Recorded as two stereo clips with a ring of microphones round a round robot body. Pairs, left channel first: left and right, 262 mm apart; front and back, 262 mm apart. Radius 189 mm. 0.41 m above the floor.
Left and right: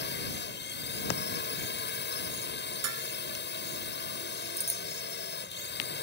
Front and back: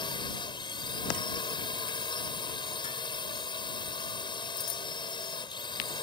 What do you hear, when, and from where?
0.0 s a drone: 65° left
2.8 s dishes clattering: 75° right
4.6 s a bicycle bell: 25° right